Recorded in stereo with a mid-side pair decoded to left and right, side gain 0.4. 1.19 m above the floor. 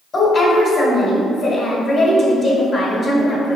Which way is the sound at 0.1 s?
40° left.